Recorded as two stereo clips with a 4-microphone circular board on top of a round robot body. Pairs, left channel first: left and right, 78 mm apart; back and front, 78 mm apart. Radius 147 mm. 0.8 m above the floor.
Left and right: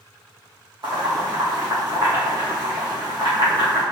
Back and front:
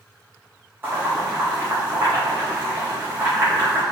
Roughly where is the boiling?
Ahead right.